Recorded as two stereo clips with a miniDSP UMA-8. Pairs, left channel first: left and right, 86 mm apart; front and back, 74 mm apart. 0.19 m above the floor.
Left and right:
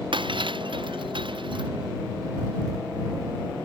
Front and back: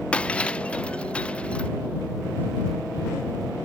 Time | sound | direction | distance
0.1 | breaking glass | 75° right | ?